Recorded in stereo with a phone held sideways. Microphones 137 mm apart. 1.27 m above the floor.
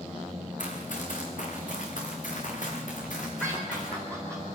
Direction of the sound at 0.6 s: 65° left (ahead or behind).